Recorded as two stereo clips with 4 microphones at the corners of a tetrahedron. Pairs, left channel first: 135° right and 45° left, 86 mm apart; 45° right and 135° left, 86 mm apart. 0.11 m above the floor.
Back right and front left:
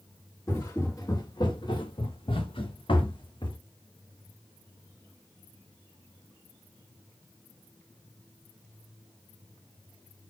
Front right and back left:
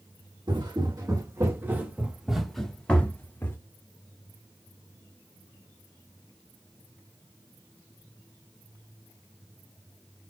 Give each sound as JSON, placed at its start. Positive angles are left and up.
{"t": 0.5, "sound": "footsteps", "azimuth_deg": 170, "distance_m": 1.8}